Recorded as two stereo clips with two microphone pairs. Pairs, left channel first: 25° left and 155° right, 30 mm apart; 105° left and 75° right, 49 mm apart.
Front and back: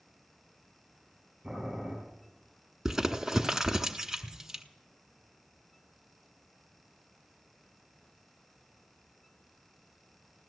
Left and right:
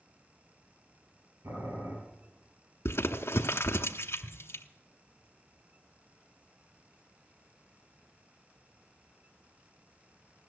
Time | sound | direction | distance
1.4 | boiling | 90° right | 7 m
2.9 | crumpling | 130° left | 0.9 m